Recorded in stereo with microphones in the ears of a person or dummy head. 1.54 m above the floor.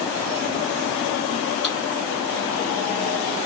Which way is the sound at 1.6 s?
Centre (ahead or behind).